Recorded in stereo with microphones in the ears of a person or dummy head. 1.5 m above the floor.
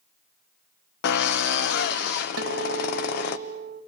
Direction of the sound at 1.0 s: 55° left (ahead or behind).